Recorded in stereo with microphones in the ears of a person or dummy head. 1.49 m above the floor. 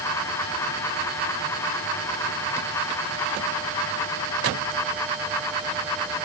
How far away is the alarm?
I don't hear an alarm.